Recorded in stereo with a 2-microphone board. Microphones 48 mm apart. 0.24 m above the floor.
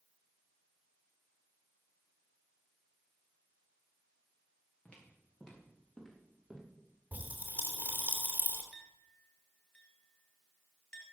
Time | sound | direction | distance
4.8 | footsteps | 25° left (ahead or behind) | 5.5 m
7.1 | a pop | 30° right (ahead or behind) | 3 m
8.7 | a clink | 20° left (ahead or behind) | 3 m